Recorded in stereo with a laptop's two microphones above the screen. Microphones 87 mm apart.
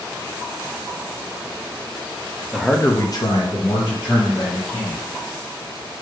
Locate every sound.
2.5 s a man speaking: 10° right (ahead or behind), 0.5 m; by 5.0 s 55° left (ahead or behind), 2.5 m